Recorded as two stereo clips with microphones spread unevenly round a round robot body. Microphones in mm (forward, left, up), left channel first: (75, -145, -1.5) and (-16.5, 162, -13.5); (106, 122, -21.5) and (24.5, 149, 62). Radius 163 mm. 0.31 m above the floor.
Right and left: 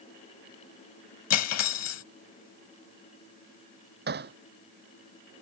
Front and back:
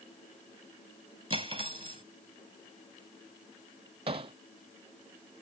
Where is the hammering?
170° left.